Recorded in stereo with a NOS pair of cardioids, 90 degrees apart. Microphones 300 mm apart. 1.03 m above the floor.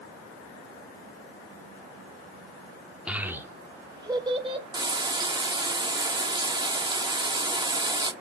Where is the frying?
15° right, 1.1 m.